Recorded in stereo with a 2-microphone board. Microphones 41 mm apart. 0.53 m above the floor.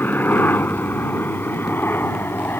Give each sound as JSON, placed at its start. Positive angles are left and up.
{"t": 0.0, "sound": "a helicopter", "side_deg": 50}